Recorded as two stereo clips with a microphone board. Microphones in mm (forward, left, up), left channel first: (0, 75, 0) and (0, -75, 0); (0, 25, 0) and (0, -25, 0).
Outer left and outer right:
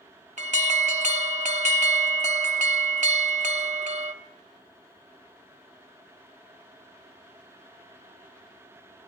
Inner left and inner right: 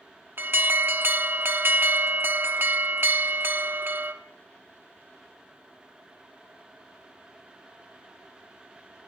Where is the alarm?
55° right (ahead or behind), 1.1 m.